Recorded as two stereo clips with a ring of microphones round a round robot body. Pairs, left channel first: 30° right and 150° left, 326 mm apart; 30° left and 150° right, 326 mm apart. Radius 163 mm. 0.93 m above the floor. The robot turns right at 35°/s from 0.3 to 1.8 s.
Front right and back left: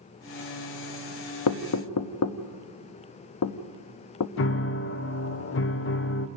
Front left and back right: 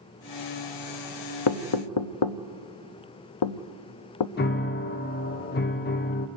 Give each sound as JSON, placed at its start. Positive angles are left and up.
{"t": 1.5, "sound": "knocking", "azimuth_deg": 5, "distance_m": 0.7}
{"t": 4.4, "sound": "a piano", "azimuth_deg": -10, "distance_m": 0.7}